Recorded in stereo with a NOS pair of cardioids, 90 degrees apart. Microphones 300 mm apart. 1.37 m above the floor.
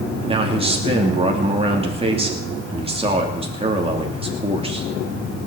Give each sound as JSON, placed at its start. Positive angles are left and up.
{"t": 0.3, "sound": "a man speaking", "azimuth_deg": -20, "distance_m": 2.5}